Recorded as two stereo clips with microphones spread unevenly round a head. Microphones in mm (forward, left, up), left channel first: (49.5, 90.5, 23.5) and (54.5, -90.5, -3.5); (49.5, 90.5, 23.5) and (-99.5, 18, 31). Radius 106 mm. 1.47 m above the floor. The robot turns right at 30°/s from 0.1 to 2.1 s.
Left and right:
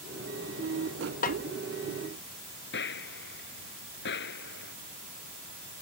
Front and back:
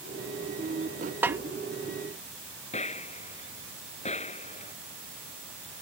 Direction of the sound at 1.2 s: 130° left.